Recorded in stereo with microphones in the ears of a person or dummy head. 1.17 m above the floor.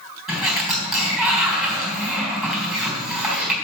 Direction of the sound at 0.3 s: 5° right (ahead or behind).